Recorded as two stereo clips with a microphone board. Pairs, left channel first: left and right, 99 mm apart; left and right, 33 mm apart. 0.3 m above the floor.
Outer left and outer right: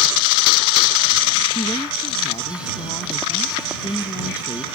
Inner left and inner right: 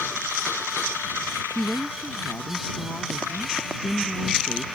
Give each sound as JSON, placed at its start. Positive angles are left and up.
{"t": 1.6, "sound": "a woman speaking", "side_deg": 50}